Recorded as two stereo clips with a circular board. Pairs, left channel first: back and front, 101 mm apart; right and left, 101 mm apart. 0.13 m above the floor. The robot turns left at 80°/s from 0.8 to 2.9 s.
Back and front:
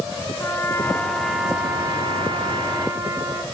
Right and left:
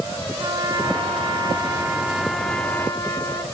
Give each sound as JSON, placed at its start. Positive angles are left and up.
{"t": 0.4, "sound": "a trumpet", "azimuth_deg": 120, "distance_m": 1.6}